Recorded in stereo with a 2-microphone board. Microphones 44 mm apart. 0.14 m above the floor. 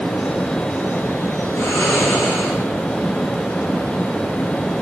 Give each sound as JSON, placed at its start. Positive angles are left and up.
{"t": 1.6, "sound": "snoring", "side_deg": 65, "distance_m": 6.5}